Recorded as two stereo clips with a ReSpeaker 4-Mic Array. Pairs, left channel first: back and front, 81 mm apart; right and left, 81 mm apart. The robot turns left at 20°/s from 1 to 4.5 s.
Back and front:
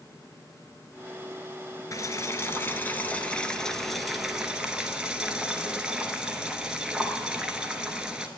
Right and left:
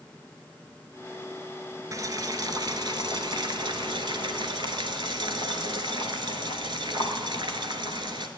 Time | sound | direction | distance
1.9 | boiling | 135° left | 0.9 m